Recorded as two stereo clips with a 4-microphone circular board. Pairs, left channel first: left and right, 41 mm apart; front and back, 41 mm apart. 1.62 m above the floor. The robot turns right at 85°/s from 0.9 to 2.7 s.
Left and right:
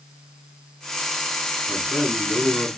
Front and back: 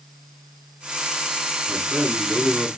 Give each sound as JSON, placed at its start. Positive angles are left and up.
{"t": 1.7, "sound": "a man speaking", "azimuth_deg": 55, "distance_m": 7.5}